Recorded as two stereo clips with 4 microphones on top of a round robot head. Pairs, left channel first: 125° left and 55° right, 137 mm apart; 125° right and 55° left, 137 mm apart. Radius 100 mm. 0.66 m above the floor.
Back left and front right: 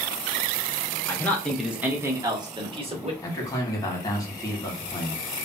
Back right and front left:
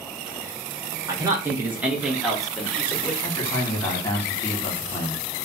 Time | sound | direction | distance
1.1 | a man speaking | 75° left | 0.9 m
3.2 | a man speaking | 175° left | 1.4 m